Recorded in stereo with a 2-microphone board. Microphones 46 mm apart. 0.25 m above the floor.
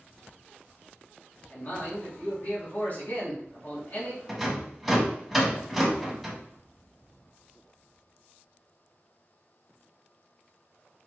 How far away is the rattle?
About 1.5 m.